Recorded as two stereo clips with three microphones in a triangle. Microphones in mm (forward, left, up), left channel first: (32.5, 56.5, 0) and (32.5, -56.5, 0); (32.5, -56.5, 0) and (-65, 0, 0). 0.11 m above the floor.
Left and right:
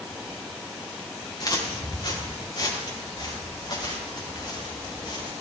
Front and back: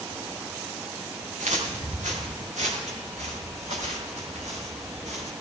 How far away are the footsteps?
About 4.5 m.